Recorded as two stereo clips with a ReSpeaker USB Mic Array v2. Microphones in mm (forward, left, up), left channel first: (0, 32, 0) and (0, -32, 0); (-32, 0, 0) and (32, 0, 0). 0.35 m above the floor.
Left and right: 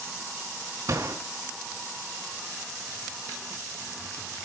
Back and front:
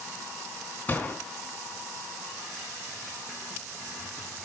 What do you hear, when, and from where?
0.9 s a gunshot: 120° right, 4 m